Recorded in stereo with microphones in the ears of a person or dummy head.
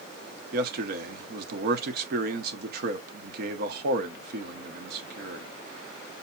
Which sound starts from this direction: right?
A man speaking, at 0.5 s.